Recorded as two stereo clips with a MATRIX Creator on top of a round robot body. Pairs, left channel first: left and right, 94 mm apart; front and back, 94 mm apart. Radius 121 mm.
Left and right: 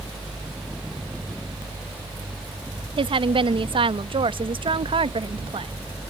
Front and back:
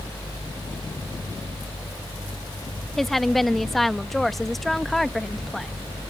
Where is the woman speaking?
90° right.